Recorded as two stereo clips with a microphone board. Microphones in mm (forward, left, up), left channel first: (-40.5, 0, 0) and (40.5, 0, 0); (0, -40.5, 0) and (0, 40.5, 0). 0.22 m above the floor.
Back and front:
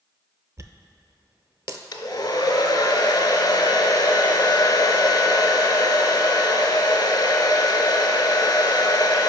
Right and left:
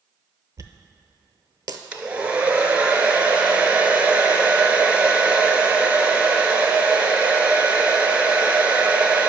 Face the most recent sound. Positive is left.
turn(degrees=165)